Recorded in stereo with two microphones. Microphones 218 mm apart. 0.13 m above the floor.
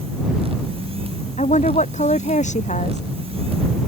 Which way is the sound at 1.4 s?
35° left (ahead or behind).